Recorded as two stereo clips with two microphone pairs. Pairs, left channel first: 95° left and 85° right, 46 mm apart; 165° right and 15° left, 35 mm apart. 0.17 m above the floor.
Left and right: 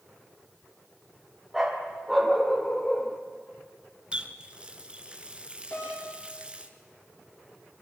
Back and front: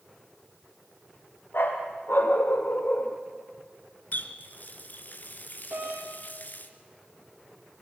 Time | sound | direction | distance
1.5 | a dog barking | 170° right | 3 m
4.1 | a running tap | 150° right | 1.8 m
5.7 | a doorbell | 50° left | 6.5 m